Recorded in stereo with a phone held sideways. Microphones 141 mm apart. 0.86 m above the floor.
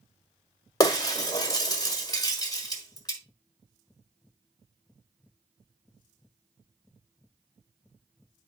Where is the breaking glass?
25° left (ahead or behind), 1.4 m.